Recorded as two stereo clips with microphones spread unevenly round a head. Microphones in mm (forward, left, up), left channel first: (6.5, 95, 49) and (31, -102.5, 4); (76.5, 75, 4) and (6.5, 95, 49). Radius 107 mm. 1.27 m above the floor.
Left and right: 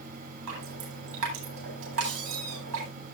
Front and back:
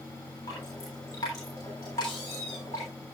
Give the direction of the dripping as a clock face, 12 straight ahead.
3 o'clock.